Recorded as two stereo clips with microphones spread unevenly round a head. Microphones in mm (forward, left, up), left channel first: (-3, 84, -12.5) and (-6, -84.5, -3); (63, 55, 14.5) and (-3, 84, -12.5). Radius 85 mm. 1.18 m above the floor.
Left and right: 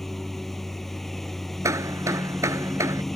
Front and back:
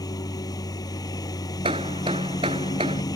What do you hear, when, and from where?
0.0 s a lawn mower: straight ahead
1.6 s hammering: 165° right